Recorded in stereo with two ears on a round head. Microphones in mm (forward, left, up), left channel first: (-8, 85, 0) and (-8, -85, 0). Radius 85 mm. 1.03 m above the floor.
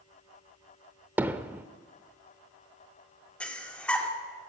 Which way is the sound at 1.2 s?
10° right (ahead or behind).